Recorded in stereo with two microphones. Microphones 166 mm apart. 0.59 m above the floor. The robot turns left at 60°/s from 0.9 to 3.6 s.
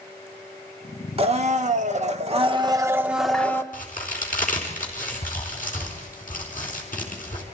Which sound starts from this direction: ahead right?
A blender, at 1.2 s.